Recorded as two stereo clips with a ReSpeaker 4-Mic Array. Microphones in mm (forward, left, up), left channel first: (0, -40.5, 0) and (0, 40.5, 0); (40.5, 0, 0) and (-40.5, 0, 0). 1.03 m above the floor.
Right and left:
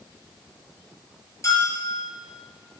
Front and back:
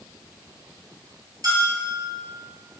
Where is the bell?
140° right, 4.5 m.